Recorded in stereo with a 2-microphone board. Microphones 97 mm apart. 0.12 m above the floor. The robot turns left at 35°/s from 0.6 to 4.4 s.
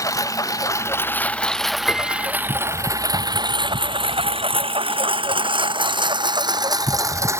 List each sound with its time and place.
0.0 s a lawn mower: 35° left (ahead or behind); by 7.4 s 30° right (ahead or behind)
1.9 s a piano: 15° left (ahead or behind); by 2.3 s 20° left (ahead or behind)